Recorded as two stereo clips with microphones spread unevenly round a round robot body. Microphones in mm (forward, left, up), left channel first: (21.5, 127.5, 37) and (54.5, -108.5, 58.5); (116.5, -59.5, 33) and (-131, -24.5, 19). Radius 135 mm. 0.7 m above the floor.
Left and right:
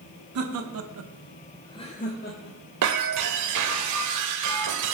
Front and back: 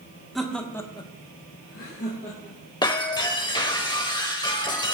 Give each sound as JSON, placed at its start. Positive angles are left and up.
{"t": 0.3, "sound": "laughter", "azimuth_deg": -100, "distance_m": 1.5}
{"t": 2.8, "sound": "breaking glass", "azimuth_deg": -80, "distance_m": 1.4}